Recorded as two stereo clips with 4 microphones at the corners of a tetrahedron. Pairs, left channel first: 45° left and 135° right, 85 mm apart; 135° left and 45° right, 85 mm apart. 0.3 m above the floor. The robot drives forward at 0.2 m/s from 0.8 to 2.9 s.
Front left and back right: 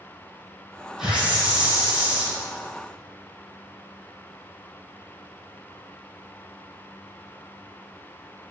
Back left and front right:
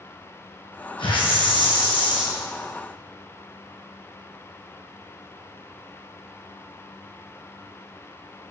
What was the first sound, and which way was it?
A hiss, 140° left.